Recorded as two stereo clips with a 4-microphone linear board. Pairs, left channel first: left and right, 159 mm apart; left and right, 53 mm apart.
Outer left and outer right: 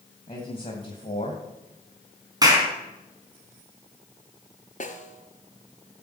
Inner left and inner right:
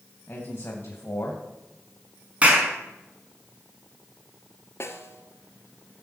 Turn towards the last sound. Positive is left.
turn(degrees=50)  # may be behind; listen again after turning